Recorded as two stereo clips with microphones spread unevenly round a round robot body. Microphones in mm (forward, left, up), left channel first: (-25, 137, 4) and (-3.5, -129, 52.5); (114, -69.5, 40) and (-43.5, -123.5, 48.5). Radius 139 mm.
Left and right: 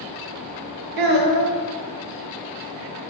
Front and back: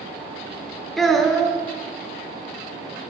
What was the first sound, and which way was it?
A child speaking, 70° right.